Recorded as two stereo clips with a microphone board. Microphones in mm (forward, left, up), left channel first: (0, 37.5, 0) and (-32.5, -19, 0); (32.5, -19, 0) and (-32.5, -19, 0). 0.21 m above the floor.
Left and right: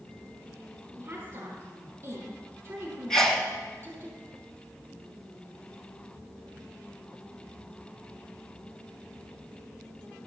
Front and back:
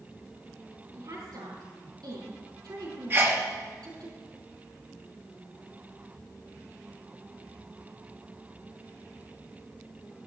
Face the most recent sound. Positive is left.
turn(degrees=140)